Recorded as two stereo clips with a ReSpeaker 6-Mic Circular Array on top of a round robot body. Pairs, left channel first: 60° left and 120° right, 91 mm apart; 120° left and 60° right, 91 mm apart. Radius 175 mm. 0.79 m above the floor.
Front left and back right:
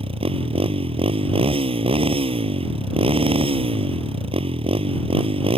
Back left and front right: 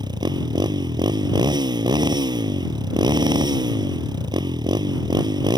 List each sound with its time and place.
0.0 s a motorcycle: 100° right